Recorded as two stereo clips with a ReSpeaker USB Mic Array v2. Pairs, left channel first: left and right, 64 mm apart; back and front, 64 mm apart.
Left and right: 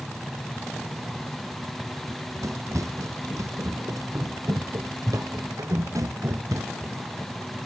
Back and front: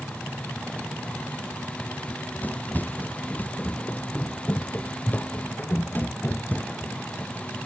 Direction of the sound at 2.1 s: 120° right.